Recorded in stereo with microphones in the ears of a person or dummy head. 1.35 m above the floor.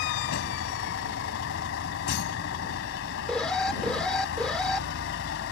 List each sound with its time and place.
0.0 s a vehicle: 75° left (ahead or behind)
3.3 s an alarm: 5° left (ahead or behind)